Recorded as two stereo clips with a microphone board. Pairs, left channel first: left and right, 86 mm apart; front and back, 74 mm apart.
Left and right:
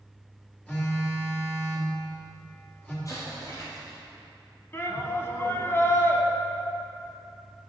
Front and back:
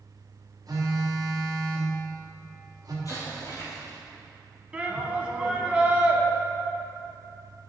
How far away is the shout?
About 1.2 m.